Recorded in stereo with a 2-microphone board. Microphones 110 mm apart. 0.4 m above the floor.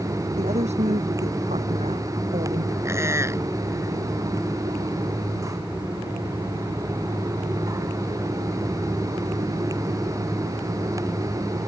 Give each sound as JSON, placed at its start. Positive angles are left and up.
{"t": 0.4, "sound": "a woman speaking", "side_deg": -85}
{"t": 2.9, "sound": "a squeak", "side_deg": -25}